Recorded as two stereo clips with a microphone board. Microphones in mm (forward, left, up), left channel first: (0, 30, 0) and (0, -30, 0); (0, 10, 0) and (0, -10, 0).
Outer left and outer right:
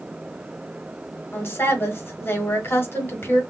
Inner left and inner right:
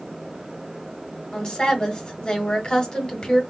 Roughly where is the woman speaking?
Left.